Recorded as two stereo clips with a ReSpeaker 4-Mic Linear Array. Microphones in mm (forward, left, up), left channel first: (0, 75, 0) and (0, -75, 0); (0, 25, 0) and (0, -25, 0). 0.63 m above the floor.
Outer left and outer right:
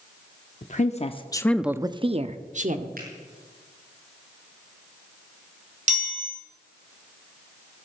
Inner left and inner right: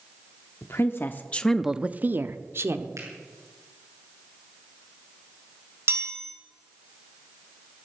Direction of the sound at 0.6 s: 55° left (ahead or behind).